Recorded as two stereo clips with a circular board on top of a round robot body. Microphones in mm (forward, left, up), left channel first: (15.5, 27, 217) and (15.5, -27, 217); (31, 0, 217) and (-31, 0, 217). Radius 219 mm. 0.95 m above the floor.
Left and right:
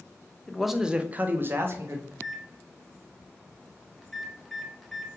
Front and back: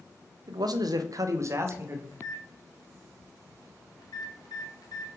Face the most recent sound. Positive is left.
turn(degrees=0)